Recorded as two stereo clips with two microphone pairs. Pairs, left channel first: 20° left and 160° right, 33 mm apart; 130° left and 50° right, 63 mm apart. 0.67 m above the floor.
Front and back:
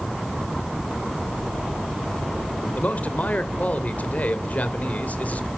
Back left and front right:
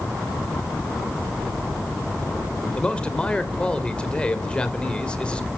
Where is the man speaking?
55° left, 3 m.